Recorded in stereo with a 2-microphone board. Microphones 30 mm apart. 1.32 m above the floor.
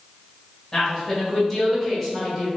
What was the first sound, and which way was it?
A woman speaking, 15° left (ahead or behind).